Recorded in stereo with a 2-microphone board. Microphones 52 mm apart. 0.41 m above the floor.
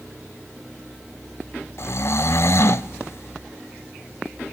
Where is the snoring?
60° left (ahead or behind), 0.5 m.